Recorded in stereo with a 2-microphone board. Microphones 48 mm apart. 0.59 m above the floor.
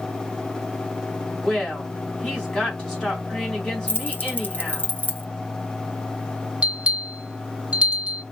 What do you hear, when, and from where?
1.4 s a woman speaking: 20° left (ahead or behind), 3.5 m
3.9 s keys jangling: 45° left (ahead or behind), 0.7 m
6.6 s a bell: 25° right (ahead or behind), 1.2 m